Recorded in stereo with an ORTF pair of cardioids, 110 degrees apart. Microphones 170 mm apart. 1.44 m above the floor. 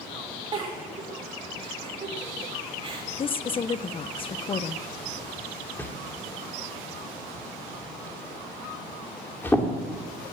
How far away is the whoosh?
About 2.5 m.